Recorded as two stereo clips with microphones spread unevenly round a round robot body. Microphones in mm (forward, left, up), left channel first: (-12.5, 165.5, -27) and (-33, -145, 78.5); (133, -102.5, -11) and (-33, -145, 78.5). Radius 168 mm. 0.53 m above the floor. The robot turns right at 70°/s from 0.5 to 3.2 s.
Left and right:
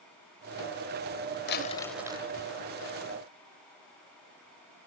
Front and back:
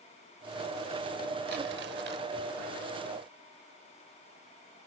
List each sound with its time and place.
1.5 s crumpling: 145° left; by 2.3 s 160° right